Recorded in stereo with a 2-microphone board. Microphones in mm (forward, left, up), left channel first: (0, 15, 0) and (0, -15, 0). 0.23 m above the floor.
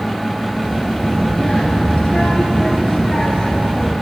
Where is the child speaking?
20° left (ahead or behind), 2.5 m.